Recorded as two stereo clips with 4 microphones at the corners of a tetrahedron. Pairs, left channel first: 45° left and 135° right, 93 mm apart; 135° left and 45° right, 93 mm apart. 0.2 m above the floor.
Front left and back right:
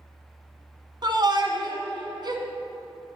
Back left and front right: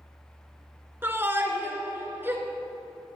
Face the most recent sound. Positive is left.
turn(degrees=-105)